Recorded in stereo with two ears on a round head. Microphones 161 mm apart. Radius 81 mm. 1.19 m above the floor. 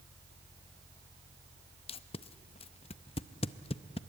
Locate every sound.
1.9 s tape being pulled: 35° left (ahead or behind), 0.6 m